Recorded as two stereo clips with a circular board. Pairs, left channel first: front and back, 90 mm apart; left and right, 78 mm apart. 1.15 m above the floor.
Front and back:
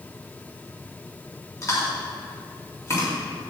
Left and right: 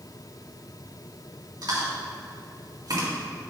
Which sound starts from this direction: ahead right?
Chewing, at 1.6 s.